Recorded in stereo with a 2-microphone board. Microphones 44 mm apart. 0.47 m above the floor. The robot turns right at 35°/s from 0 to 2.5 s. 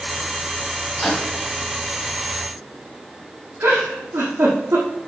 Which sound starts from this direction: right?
A giggle, at 3.6 s.